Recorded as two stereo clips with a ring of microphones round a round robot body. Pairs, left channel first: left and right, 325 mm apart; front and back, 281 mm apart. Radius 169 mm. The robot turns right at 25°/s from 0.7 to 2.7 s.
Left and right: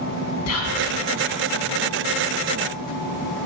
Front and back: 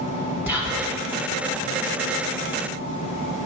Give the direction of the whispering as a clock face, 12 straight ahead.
9 o'clock.